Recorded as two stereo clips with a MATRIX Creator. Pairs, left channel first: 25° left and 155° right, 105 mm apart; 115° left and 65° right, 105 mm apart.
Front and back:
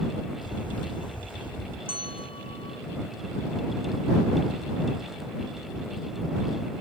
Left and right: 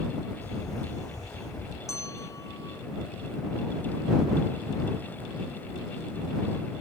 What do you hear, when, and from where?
0.4 s a camera shutter: 60° left
1.9 s a bell: 50° left